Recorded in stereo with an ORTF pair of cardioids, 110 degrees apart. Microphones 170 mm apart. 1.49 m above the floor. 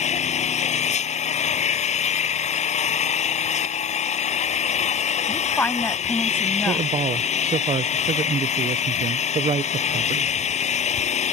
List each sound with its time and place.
0.0 s an engine running: 40° left
5.3 s a woman speaking: 10° left
6.7 s a man speaking: 35° right